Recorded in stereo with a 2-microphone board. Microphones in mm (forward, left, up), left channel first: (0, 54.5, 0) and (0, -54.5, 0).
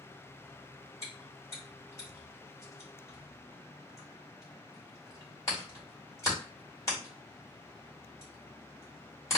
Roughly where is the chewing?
Left.